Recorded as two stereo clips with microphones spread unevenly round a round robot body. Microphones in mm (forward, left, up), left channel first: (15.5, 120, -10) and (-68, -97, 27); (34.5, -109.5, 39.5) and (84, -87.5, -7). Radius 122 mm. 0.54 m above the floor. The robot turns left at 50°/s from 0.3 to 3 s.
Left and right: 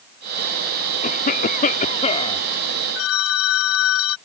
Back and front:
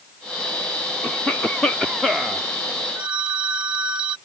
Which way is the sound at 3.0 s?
80° left.